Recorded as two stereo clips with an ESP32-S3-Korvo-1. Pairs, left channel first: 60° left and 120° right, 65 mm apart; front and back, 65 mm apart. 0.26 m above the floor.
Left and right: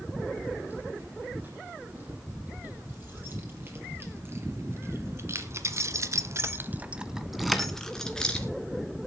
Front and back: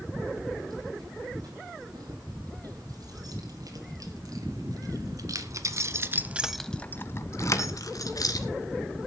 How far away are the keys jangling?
About 8.5 m.